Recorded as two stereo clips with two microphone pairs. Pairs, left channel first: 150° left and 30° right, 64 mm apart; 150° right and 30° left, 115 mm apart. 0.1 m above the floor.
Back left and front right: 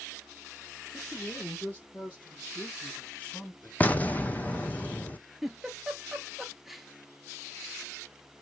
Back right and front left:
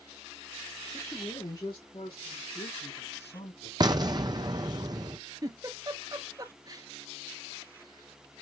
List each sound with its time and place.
0.9 s a man speaking: 170° left, 1.8 m; by 3.7 s 145° right, 4.5 m
3.8 s an explosion: 80° left, 0.7 m
5.4 s a giggle: 55° left, 0.9 m